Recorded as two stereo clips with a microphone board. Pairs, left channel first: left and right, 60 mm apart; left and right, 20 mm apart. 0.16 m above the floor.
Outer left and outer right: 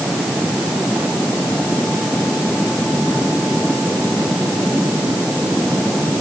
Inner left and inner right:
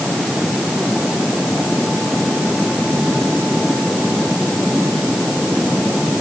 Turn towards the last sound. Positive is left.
No sound to turn to.